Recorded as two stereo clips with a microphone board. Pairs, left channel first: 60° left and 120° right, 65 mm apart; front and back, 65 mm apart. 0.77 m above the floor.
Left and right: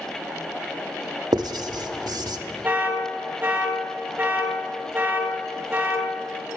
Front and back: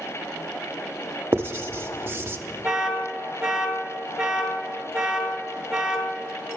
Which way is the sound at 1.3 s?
125° right.